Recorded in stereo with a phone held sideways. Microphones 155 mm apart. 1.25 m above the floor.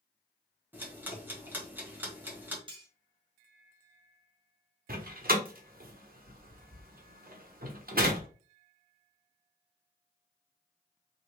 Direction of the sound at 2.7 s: 30° right (ahead or behind).